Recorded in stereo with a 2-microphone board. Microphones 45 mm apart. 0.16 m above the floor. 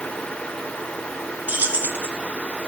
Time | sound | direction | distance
1.5 | keys jangling | 35° right (ahead or behind) | 1.4 m